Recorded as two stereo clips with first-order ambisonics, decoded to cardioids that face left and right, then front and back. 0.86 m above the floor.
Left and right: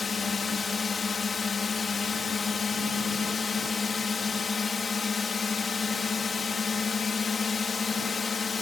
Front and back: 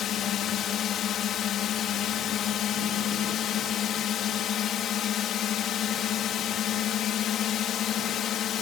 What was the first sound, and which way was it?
A drone, 25° left.